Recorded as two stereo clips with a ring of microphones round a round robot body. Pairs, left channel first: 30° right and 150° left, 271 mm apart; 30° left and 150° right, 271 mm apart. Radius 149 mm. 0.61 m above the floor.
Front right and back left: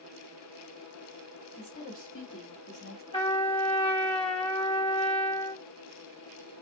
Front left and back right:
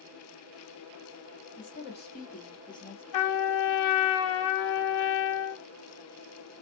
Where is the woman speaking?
10° right, 1.6 m; by 3.0 s 50° right, 1.1 m.